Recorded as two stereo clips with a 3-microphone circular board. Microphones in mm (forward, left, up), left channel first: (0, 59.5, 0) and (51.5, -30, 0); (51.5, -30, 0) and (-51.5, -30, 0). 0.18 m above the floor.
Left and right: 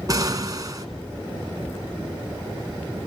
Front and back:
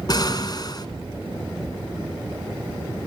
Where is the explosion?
25° right, 1.8 m.